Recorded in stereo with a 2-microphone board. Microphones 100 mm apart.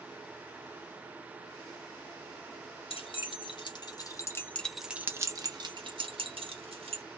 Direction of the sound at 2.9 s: 60° left (ahead or behind).